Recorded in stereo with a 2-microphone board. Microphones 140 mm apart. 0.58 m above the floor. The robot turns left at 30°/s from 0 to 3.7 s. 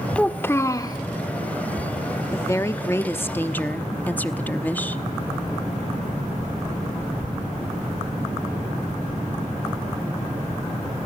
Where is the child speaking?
5° left (ahead or behind), 0.8 m; by 1.0 s 30° left (ahead or behind), 0.8 m.